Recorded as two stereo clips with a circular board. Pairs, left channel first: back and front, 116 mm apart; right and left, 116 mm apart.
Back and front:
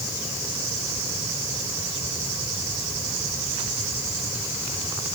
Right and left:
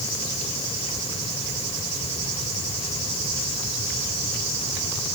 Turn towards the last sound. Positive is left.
No sound to turn to.